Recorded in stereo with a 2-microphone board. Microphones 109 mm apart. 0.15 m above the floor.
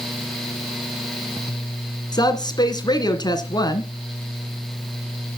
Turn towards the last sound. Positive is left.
turn(degrees=40)  # may be behind; listen again after turning